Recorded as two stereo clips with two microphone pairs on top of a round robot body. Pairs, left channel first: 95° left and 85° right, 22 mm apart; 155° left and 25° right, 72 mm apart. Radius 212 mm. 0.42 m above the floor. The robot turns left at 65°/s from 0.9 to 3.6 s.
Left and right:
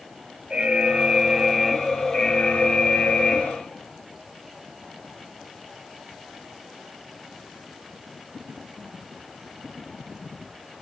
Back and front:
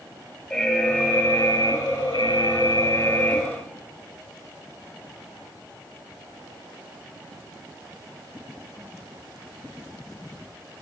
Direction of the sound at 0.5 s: 120° right.